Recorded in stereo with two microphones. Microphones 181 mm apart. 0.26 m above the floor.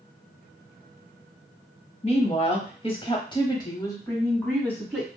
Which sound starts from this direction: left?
A woman speaking, at 2.0 s.